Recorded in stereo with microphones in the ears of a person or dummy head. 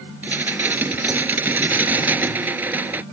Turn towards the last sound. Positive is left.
turn(degrees=-10)  # may be behind; listen again after turning